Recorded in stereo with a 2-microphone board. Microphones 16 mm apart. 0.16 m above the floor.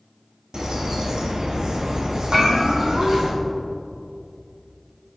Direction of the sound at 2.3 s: 65° right (ahead or behind).